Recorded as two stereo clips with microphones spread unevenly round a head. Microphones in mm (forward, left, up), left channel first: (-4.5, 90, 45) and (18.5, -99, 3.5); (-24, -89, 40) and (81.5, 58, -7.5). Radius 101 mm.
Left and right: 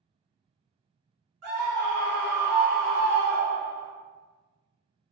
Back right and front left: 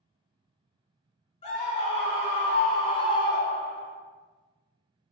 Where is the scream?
75° right, 1.7 m; by 3.9 s straight behind, 0.6 m.